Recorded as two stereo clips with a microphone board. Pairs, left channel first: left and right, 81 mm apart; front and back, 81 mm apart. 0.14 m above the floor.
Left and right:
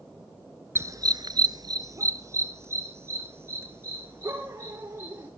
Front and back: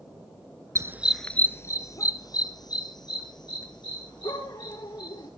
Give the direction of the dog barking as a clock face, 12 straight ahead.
5 o'clock.